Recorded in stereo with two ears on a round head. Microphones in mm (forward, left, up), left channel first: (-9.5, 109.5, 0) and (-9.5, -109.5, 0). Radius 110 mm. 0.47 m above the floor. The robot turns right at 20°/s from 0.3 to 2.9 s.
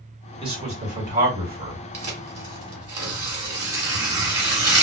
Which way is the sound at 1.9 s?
30° right (ahead or behind).